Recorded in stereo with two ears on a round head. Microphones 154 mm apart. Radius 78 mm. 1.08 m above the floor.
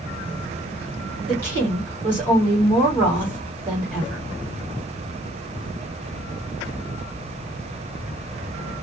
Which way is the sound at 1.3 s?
10° left (ahead or behind).